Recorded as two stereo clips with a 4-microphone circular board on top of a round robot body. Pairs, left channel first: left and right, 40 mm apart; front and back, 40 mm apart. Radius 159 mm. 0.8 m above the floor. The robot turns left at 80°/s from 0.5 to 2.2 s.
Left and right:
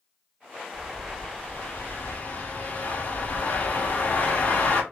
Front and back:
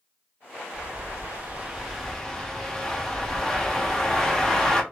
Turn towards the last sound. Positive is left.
turn(degrees=70)